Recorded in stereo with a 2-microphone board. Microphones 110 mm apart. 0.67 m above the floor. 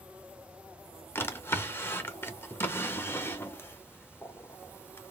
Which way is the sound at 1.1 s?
20° left (ahead or behind).